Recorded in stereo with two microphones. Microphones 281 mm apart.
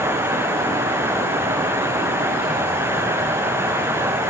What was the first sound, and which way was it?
Only background noise.